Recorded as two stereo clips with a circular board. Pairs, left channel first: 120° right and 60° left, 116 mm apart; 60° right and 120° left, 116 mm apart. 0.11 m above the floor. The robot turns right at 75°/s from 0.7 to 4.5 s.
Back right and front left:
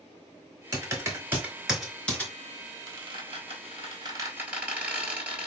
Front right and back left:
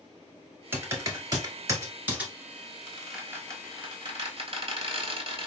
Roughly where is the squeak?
Ahead.